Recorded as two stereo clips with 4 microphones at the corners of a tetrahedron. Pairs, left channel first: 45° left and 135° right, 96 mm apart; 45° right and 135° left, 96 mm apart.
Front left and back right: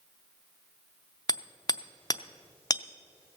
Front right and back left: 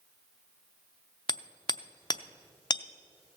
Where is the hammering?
Straight ahead, 0.6 m.